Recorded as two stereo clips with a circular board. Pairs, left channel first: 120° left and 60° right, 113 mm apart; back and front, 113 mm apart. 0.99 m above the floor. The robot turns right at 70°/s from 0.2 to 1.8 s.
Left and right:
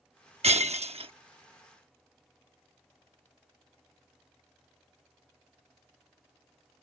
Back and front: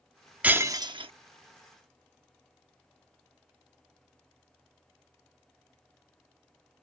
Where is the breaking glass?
75° right; by 1.1 s 30° right.